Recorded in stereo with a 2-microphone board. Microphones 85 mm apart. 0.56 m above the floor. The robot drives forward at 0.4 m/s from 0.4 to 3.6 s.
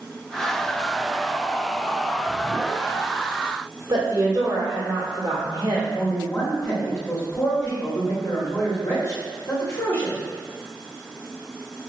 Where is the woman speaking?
50° right (ahead or behind), 1.5 m.